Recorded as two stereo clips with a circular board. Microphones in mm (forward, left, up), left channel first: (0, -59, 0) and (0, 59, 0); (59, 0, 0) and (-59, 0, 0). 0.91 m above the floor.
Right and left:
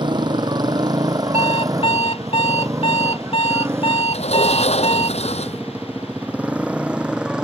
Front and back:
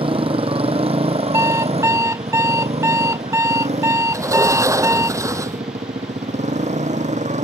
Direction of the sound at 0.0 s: 140° left.